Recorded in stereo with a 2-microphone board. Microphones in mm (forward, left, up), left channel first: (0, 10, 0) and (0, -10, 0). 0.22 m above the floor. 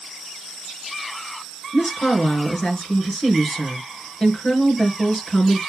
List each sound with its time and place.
1.7 s a woman speaking: 40° left (ahead or behind), 3.5 m